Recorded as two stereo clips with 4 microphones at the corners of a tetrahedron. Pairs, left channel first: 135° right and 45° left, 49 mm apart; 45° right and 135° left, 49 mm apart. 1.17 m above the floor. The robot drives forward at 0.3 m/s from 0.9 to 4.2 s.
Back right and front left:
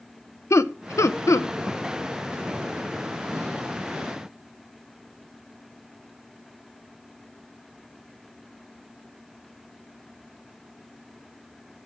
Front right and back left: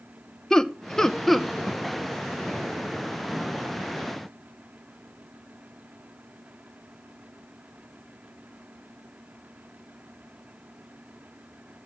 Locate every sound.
0.5 s laughter: 125° right, 0.6 m; by 1.5 s 135° right, 0.8 m